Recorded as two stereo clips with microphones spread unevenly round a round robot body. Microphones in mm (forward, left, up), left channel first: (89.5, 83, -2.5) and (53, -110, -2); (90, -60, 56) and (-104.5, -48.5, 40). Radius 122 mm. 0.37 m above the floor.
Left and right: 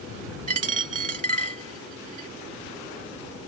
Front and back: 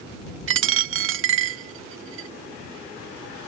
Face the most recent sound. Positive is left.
turn(degrees=-160)